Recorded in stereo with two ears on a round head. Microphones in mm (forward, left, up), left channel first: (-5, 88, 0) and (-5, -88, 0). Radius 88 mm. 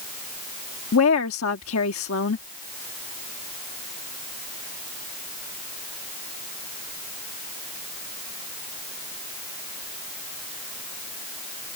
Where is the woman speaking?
75° left (ahead or behind).